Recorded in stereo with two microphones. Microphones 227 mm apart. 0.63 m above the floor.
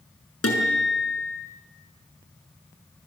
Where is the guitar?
85° left, 6 m.